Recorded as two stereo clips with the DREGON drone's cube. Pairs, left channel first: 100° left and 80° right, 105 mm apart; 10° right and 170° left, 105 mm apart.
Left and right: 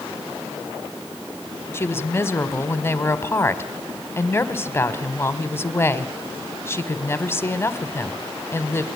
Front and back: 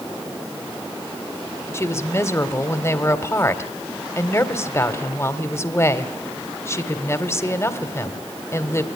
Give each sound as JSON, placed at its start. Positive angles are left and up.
{"t": 1.7, "sound": "a woman speaking", "azimuth_deg": 45, "distance_m": 1.7}